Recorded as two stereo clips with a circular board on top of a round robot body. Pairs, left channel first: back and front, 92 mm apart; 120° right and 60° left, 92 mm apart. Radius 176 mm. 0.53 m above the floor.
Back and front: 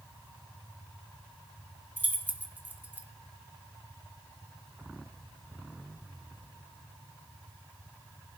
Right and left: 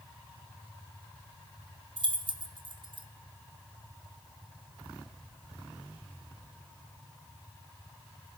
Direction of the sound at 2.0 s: 70° left.